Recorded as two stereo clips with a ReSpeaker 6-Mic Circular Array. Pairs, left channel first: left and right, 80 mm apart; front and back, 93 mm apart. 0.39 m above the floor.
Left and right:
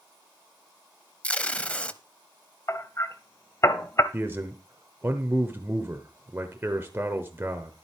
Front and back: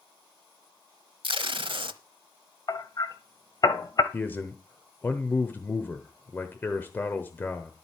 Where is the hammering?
40° left, 1.0 m.